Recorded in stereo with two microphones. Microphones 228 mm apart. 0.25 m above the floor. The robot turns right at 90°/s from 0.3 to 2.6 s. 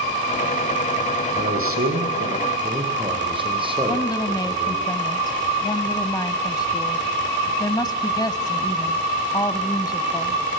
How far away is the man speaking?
About 8 m.